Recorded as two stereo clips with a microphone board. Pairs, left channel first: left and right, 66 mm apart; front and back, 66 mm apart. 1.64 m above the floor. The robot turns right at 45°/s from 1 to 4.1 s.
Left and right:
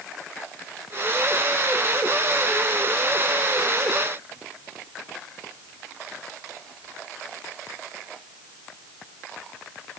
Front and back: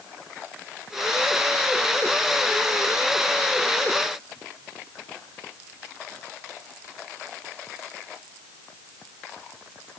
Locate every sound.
Only background noise.